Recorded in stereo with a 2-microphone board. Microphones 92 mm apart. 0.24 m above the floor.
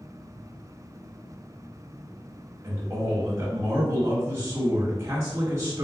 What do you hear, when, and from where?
2.6 s a man speaking: 25° right (ahead or behind), 1.2 m